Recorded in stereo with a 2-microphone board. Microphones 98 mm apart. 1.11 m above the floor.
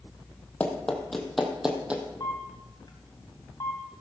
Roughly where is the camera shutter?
Left.